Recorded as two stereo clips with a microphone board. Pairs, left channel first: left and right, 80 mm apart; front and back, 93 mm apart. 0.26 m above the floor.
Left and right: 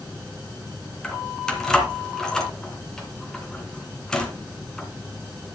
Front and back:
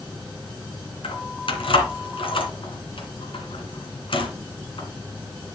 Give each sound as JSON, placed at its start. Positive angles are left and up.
{"t": 1.0, "sound": "keys jangling", "azimuth_deg": 10, "distance_m": 2.5}